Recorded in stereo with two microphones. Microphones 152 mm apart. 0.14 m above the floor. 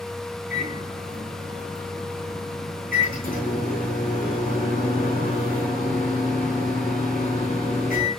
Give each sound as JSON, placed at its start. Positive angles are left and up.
{"t": 0.5, "sound": "a microwave", "side_deg": 70, "distance_m": 6.0}